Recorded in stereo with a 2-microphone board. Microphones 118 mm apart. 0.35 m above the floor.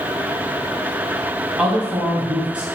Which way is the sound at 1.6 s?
10° right (ahead or behind).